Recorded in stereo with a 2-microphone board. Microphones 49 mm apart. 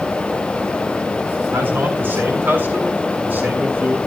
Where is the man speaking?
45° right (ahead or behind), 8 m; by 4.0 s 40° right (ahead or behind), 6.5 m.